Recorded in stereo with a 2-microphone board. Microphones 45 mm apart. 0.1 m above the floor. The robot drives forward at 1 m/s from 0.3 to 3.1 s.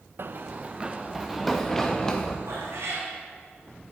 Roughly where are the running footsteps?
Right.